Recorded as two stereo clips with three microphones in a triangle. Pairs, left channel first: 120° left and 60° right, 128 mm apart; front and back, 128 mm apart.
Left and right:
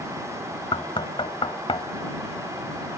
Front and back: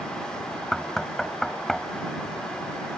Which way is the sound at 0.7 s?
85° left.